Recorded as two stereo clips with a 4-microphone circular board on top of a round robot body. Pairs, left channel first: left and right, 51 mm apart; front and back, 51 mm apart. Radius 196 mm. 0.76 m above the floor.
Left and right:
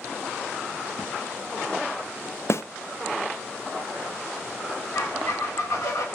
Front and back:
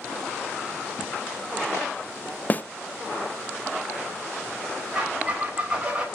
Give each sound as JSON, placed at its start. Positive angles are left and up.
{"t": 2.5, "sound": "a snare drum", "azimuth_deg": 60, "distance_m": 0.8}
{"t": 5.0, "sound": "a squeak", "azimuth_deg": 110, "distance_m": 3.0}